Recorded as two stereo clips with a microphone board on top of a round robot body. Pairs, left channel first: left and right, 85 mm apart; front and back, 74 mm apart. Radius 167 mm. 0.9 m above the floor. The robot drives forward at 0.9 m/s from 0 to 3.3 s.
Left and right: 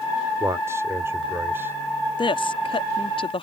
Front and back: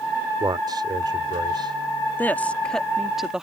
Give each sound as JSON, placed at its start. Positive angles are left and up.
{"t": 0.4, "sound": "a man speaking", "azimuth_deg": -145}
{"t": 2.2, "sound": "a woman speaking", "azimuth_deg": 65}